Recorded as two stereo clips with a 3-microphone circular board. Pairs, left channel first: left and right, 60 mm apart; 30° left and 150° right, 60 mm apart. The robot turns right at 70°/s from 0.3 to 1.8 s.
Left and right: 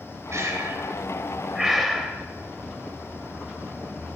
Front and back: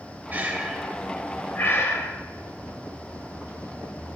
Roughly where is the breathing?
Right.